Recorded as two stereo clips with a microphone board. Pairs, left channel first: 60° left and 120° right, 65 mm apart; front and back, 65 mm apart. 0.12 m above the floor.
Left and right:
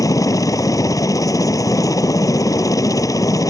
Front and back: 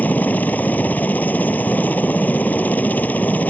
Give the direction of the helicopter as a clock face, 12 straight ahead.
10 o'clock.